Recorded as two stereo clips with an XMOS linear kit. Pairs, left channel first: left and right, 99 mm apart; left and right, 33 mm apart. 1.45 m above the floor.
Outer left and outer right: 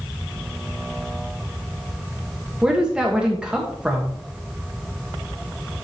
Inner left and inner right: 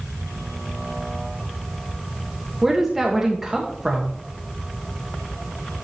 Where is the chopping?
I don't hear chopping.